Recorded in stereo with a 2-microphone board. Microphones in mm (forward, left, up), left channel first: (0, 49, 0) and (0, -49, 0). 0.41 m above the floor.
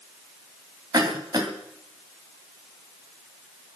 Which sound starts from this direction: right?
A cough, at 0.9 s.